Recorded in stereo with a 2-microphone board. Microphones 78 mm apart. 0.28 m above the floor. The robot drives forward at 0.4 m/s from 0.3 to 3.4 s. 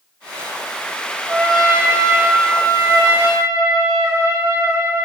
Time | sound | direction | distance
1.3 | a trumpet | 55° right (ahead or behind) | 4.5 m